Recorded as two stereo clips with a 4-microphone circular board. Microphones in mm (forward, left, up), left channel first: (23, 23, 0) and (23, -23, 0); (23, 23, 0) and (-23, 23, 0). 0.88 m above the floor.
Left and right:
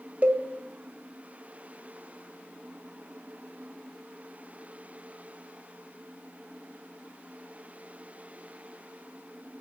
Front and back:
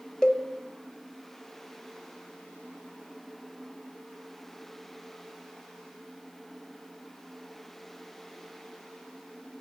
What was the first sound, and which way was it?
A cowbell, 65° right.